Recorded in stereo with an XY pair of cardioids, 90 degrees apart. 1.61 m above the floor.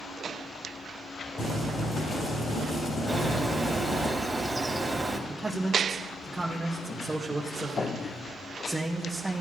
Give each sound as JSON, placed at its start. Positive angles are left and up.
{"t": 1.4, "sound": "boiling", "azimuth_deg": 55, "distance_m": 4.0}
{"t": 3.1, "sound": "a bird", "azimuth_deg": -5, "distance_m": 2.5}
{"t": 5.3, "sound": "a man speaking", "azimuth_deg": -15, "distance_m": 2.0}